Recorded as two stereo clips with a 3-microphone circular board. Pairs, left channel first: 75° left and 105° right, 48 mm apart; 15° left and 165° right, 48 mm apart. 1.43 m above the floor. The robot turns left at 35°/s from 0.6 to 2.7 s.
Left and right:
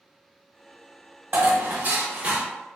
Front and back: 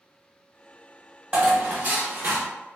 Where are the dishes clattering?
120° right, 0.8 m; by 2.5 s 160° right, 0.8 m.